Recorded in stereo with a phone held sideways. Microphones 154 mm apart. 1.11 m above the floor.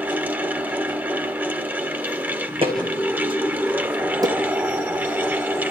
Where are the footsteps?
35° right (ahead or behind), 3 m; by 4.3 s 25° right (ahead or behind), 2.5 m.